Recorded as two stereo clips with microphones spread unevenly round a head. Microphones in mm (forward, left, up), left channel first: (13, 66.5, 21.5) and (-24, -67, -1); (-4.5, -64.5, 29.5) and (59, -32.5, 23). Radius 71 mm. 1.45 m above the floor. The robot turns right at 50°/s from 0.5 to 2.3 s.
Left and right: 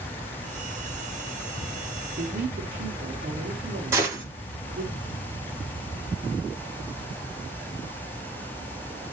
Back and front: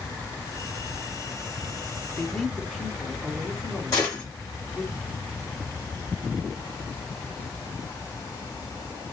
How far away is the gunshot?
About 1.2 m.